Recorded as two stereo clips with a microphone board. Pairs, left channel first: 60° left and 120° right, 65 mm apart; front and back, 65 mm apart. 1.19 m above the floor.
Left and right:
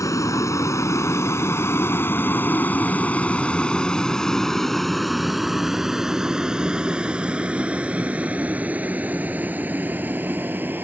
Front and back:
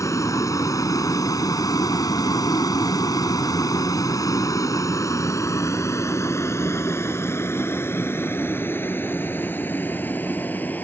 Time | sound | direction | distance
0.0 | a vehicle | 30° left | ?